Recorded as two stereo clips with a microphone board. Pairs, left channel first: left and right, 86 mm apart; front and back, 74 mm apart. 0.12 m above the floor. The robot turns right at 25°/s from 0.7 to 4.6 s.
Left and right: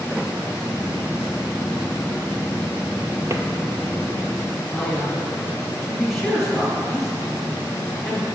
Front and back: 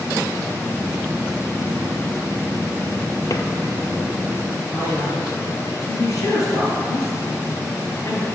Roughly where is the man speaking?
Ahead.